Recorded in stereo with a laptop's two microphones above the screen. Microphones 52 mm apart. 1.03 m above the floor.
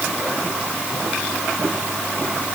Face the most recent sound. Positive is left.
No sound to turn to.